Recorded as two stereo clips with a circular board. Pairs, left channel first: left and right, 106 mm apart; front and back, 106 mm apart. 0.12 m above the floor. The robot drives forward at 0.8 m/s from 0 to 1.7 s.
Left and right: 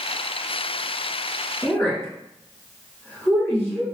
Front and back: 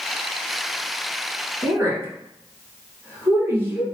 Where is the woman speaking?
130° left, 1.9 m.